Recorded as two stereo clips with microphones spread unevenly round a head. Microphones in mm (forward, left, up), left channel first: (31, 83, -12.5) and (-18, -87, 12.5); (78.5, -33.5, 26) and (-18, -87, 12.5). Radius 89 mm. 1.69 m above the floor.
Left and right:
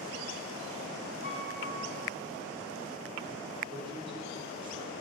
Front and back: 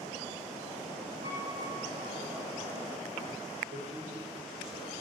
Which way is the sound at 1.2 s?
160° right.